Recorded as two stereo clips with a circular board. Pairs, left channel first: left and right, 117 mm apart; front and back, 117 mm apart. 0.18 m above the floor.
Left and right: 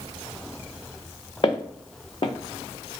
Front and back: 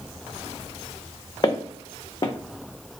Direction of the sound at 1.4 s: 50° left.